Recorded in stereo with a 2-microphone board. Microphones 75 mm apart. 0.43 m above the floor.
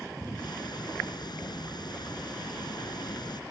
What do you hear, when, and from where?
0.4 s ticking: 70° left (ahead or behind)